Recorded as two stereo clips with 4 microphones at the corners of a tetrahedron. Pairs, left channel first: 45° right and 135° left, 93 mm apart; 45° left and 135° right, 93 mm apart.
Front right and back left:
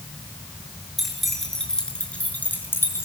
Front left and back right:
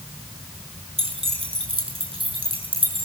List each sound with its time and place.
1.0 s keys jangling: 135° right, 6.5 m; by 3.1 s 110° right, 5.5 m